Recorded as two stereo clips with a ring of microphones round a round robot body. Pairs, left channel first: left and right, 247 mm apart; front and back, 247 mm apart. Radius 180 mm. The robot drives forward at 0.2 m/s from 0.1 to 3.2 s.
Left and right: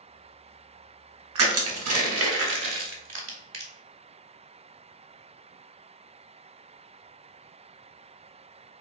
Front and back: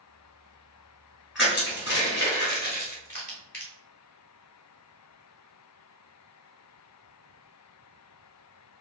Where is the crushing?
90° right, 1.0 m; by 3.7 s 110° right, 1.1 m.